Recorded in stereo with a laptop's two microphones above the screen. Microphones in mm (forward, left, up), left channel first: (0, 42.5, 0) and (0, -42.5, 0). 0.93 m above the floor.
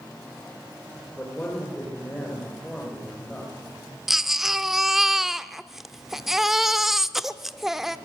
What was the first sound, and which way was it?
A man speaking, 15° left (ahead or behind).